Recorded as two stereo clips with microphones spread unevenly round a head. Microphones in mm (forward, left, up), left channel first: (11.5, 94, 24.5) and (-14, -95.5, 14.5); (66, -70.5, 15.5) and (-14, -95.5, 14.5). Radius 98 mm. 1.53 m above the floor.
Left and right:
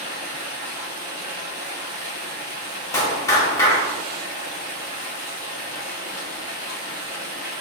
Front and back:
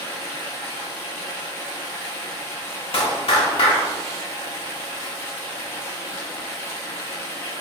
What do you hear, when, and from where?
0.0 s running water: 30° right, 1.2 m
2.9 s a clap: 10° left, 1.0 m